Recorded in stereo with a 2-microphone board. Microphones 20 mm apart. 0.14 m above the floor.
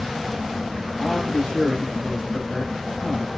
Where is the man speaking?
40° left (ahead or behind), 6.5 m.